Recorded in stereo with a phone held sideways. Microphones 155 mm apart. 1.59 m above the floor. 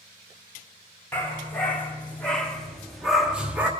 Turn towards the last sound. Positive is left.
turn(degrees=-10)  # may be behind; listen again after turning